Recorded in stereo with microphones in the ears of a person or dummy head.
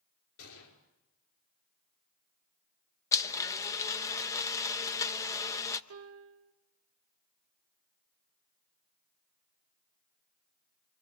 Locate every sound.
0.4 s a gunshot: 75° left (ahead or behind), 5.5 m
3.1 s a blender: 15° left (ahead or behind), 1.0 m
5.9 s a piano: 75° right (ahead or behind), 1.3 m